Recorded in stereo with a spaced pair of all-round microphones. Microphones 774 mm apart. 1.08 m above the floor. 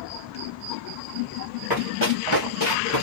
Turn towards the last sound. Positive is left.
turn(degrees=20)  # may be behind; listen again after turning